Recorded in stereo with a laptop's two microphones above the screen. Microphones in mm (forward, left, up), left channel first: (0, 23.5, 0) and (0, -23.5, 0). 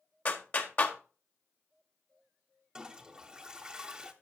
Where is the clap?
35° left (ahead or behind), 1.2 m.